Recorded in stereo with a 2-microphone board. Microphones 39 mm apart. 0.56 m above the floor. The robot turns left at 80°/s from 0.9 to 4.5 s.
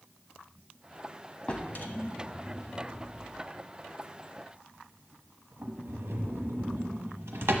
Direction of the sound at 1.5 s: 30° left (ahead or behind).